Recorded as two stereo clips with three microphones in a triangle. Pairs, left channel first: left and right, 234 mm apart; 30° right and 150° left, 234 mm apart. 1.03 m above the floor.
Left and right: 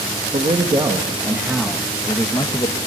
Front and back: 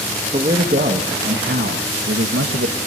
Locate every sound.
0.3 s a man speaking: 150° right, 1.6 m; by 2.8 s 155° left, 1.2 m